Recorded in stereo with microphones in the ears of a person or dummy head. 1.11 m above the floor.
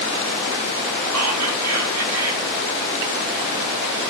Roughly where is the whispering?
Right.